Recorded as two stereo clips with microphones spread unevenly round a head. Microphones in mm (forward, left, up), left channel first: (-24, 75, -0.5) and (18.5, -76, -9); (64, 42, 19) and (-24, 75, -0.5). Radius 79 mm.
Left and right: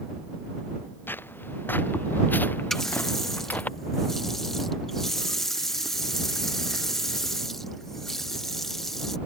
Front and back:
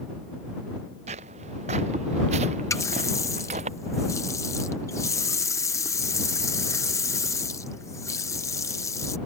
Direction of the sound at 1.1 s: 175° right.